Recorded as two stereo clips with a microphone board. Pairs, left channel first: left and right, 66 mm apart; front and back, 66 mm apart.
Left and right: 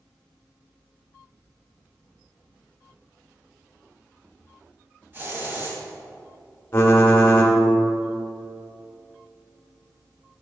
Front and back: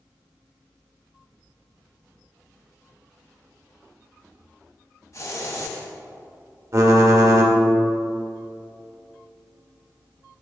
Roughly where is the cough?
No cough in this recording.